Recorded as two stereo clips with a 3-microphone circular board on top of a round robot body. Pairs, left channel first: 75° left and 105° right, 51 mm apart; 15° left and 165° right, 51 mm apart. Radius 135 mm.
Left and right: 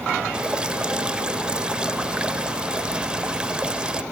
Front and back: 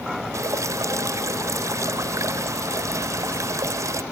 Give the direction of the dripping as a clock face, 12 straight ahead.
6 o'clock.